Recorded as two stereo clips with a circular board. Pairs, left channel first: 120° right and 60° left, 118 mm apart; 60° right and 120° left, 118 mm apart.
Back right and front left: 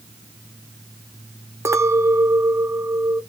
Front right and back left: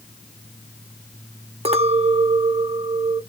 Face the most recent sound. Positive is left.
turn(degrees=120)